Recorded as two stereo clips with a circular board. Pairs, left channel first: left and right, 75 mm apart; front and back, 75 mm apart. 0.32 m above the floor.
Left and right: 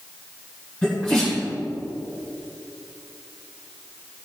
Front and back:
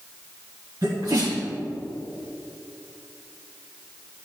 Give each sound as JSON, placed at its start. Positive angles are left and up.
{"t": 0.8, "sound": "a sneeze", "azimuth_deg": 160, "distance_m": 2.5}